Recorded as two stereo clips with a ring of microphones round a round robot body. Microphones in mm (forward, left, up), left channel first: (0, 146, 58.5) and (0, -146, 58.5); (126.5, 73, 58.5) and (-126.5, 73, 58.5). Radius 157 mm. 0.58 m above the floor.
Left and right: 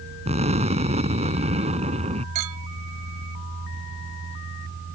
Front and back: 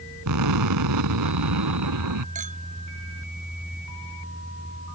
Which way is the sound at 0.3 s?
160° right.